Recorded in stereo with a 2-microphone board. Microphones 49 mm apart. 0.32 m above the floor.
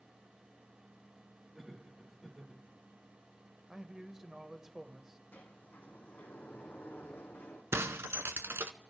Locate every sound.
1.5 s laughter: 5° right (ahead or behind), 5 m
3.7 s a man speaking: 10° right (ahead or behind), 1.0 m
5.3 s a sliding door: 45° left (ahead or behind), 2.5 m
7.7 s breaking glass: 65° right (ahead or behind), 0.8 m